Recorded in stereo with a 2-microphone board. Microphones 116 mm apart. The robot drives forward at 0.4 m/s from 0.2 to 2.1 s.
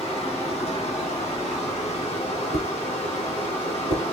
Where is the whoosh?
65° right (ahead or behind), 0.8 m.